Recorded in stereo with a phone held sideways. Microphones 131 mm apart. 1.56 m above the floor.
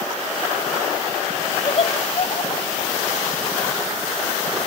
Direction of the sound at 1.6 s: 45° left (ahead or behind).